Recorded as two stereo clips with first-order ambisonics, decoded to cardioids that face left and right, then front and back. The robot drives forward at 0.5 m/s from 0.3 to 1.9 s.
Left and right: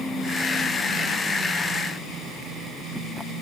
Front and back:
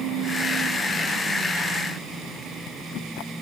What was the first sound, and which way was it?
Only background noise.